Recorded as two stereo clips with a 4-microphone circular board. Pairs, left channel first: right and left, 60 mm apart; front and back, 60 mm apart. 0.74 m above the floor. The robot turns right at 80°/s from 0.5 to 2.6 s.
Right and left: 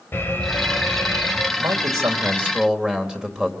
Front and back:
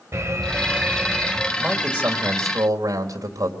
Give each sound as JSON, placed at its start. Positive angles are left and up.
{"t": 0.1, "sound": "an alarm", "azimuth_deg": -145, "distance_m": 3.0}
{"t": 1.6, "sound": "a man speaking", "azimuth_deg": 90, "distance_m": 3.0}